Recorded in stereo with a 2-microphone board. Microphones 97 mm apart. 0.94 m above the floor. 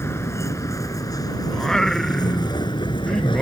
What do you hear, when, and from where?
0.0 s a vehicle: 30° left (ahead or behind); by 3.4 s 60° left (ahead or behind)
1.5 s singing: 5° left (ahead or behind)